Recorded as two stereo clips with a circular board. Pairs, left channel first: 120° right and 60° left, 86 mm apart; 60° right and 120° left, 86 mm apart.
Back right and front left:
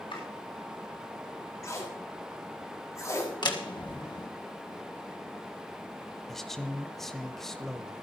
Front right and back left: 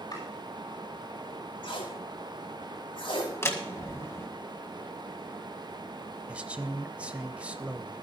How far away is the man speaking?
About 1.1 m.